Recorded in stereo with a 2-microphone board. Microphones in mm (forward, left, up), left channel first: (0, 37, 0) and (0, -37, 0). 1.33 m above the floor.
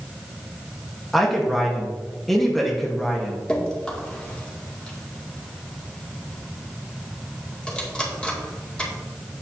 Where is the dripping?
15° left (ahead or behind), 2 m.